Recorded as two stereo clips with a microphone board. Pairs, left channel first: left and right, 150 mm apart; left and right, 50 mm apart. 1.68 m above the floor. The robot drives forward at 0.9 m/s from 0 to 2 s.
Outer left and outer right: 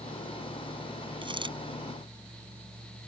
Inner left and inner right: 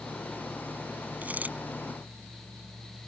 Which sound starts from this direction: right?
A dropped coin, at 1.2 s.